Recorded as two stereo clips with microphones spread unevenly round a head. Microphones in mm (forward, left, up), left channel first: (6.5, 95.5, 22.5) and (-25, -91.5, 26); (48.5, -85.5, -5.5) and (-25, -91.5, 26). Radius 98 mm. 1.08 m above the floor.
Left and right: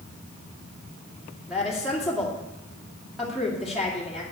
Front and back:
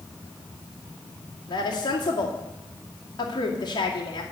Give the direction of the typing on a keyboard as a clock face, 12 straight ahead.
I don't hear typing on a keyboard.